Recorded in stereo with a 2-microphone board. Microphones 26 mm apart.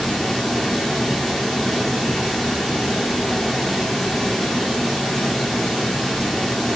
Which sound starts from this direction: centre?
Running water, at 0.0 s.